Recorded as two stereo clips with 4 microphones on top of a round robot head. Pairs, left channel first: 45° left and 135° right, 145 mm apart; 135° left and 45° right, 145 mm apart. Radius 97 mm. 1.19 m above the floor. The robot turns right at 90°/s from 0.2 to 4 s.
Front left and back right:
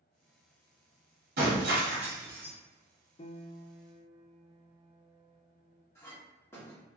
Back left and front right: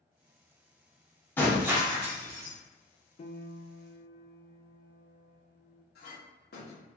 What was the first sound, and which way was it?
Breaking glass, 150° right.